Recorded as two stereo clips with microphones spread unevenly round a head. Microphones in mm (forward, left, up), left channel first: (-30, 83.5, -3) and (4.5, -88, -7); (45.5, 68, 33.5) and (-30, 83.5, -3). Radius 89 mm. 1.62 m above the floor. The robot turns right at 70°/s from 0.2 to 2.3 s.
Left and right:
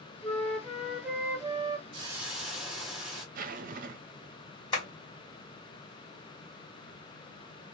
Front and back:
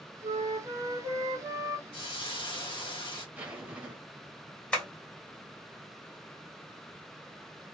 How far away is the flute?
About 0.9 m.